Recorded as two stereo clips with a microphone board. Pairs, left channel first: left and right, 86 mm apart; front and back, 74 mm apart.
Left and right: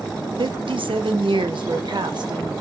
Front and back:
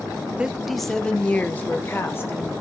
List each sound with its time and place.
0.4 s a woman speaking: 105° right, 0.7 m; by 2.5 s 55° right, 1.4 m